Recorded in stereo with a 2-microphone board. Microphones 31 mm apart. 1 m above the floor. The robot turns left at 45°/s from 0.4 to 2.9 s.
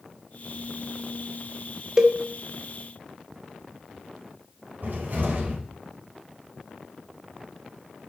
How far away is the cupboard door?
About 5 m.